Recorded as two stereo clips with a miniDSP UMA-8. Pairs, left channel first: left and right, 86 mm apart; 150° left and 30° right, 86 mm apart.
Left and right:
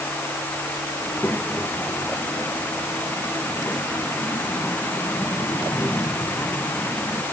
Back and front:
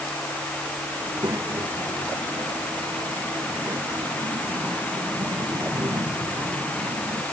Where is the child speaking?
20° left.